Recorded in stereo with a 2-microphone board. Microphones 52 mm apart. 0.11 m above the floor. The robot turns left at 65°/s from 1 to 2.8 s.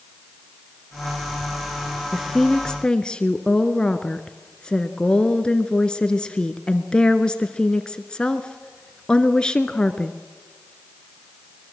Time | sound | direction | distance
2.1 | a woman speaking | 5° right (ahead or behind) | 1.2 m